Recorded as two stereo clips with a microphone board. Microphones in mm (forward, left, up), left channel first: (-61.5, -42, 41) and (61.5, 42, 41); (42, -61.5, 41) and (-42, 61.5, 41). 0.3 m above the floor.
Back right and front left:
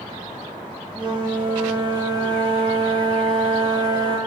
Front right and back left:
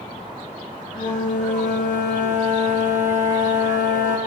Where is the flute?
25° right, 4 m.